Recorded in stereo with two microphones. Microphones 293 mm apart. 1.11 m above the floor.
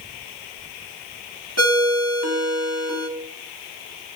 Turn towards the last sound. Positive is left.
turn(degrees=-60)  # may be behind; listen again after turning